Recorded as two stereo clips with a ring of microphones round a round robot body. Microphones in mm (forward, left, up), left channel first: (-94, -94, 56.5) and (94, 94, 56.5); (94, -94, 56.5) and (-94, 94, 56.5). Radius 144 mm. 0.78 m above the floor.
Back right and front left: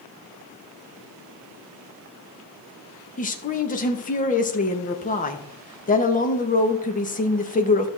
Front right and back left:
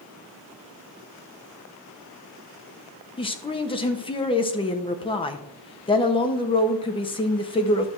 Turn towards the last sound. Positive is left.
turn(degrees=-100)